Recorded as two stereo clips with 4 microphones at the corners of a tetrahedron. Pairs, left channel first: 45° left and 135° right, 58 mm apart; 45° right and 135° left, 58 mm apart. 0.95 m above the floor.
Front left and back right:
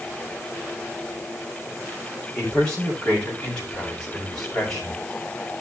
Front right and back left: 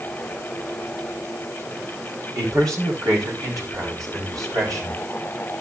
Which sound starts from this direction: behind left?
A man speaking, at 2.4 s.